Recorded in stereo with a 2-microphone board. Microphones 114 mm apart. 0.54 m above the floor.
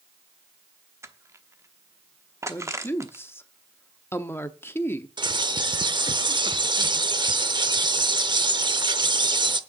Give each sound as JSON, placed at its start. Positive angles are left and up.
{"t": 1.0, "sound": "crushing", "side_deg": -25, "distance_m": 0.9}
{"t": 2.5, "sound": "a woman speaking", "side_deg": 20, "distance_m": 0.7}
{"t": 5.2, "sound": "a bird", "side_deg": -40, "distance_m": 0.7}